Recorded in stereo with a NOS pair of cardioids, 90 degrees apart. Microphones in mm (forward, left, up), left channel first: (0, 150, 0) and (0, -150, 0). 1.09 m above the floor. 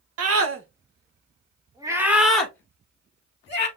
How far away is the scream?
About 1.3 m.